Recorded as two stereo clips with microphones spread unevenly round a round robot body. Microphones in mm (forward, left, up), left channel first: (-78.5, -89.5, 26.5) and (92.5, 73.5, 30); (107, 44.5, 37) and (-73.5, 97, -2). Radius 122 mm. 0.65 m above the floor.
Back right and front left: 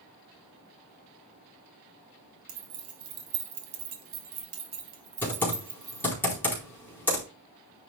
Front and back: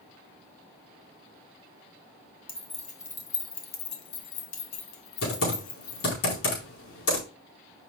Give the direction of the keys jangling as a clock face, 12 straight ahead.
10 o'clock.